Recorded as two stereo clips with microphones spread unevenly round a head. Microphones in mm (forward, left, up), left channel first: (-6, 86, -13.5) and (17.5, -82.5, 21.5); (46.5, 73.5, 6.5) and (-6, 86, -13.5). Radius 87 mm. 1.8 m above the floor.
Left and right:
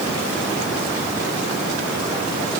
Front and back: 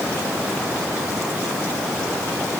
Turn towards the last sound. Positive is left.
No sound to turn to.